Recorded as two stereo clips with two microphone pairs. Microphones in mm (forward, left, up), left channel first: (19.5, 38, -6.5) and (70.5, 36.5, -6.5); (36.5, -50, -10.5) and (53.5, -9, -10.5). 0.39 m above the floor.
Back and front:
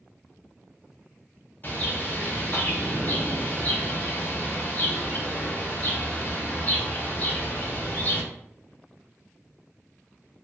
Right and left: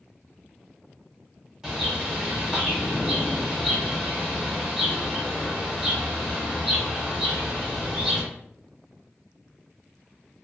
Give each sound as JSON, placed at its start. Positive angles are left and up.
{"t": 1.6, "sound": "a bird", "azimuth_deg": 140, "distance_m": 0.9}